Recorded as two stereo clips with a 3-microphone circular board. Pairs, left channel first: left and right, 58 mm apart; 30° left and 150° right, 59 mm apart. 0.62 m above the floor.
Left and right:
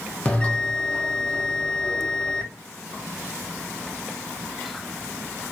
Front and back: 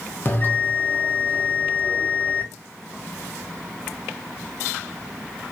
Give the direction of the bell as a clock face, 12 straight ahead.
11 o'clock.